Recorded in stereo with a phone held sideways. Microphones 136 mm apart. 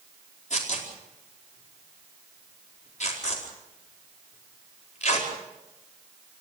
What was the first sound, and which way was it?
Tearing paper, 60° left (ahead or behind).